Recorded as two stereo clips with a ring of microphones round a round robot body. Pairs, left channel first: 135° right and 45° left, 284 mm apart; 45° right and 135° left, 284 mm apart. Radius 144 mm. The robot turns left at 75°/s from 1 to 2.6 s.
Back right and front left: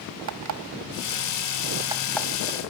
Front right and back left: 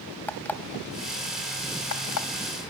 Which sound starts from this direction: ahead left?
An alarm clock, at 0.3 s.